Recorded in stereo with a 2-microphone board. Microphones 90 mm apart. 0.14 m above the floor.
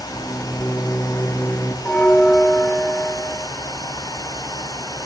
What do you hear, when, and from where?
0.1 s a microwave: 25° left (ahead or behind), 2.5 m
1.9 s a bell: 15° left (ahead or behind), 1.9 m